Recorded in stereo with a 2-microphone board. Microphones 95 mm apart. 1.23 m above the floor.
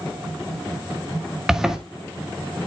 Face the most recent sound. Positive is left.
turn(degrees=-5)  # may be behind; listen again after turning